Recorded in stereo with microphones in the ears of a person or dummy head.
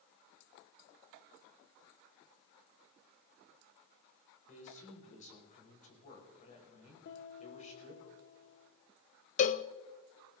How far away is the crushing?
No crushing in this recording.